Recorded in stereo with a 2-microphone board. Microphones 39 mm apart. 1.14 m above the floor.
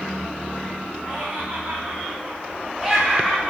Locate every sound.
1.0 s laughter: 35° right (ahead or behind), 0.9 m; by 3.5 s centre (ahead or behind), 0.9 m